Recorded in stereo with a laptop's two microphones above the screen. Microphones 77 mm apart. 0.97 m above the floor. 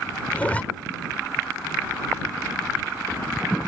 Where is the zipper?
20° left (ahead or behind).